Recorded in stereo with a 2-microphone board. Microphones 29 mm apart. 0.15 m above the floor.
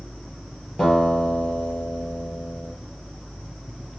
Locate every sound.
0.8 s a guitar: 20° left (ahead or behind), 3 m